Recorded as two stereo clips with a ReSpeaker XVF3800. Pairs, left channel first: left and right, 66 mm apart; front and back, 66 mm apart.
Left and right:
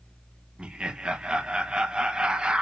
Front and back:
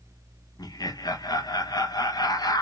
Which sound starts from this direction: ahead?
Laughter, at 0.6 s.